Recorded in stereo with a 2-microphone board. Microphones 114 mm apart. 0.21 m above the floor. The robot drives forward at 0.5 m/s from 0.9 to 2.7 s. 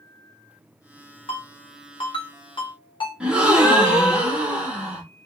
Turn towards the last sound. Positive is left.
turn(degrees=-10)  # may be behind; listen again after turning